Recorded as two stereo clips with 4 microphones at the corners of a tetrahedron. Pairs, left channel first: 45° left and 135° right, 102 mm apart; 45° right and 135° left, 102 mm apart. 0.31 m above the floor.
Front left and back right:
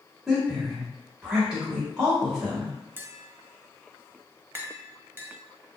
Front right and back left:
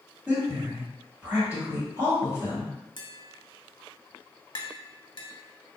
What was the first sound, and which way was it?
A woman speaking, 150° left.